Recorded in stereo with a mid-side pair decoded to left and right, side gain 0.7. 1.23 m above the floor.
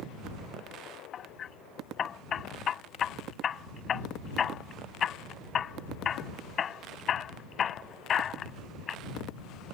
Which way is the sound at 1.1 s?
35° left.